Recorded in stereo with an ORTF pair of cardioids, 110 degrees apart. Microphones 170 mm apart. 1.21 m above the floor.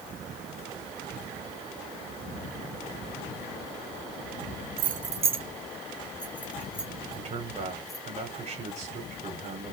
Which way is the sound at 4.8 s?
65° right.